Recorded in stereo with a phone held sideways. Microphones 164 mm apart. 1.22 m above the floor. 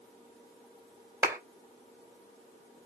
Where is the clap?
15° right (ahead or behind), 3.5 m.